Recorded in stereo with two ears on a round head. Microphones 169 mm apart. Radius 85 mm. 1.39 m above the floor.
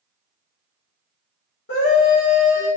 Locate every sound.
1.7 s a scream: 65° left (ahead or behind), 1.1 m